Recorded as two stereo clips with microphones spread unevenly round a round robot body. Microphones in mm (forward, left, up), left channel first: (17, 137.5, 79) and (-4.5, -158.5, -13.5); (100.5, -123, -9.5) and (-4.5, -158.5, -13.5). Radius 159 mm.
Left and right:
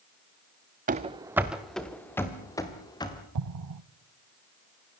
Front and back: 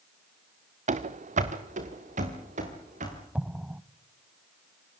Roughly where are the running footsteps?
Behind.